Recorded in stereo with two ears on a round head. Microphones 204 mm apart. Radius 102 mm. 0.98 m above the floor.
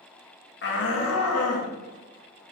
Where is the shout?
50° left (ahead or behind), 1.8 m; by 1.7 s 70° left (ahead or behind), 2.5 m.